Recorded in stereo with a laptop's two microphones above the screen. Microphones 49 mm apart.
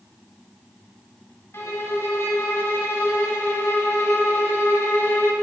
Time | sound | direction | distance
1.5 | a violin | 60° left (ahead or behind) | 1.2 m